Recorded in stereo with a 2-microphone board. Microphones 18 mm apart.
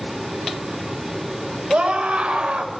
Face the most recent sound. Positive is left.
turn(degrees=-80)